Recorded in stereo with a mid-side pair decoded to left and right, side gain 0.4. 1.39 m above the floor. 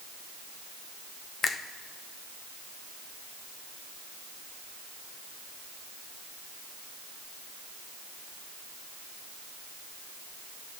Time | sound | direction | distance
1.4 | a finger snap | 60° left | 0.8 m